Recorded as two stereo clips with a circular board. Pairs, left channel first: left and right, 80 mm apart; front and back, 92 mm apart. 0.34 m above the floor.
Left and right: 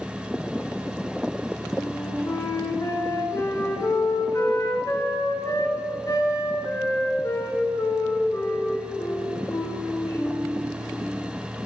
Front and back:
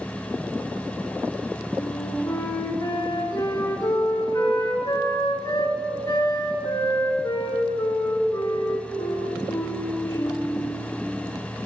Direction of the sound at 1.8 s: 45° left.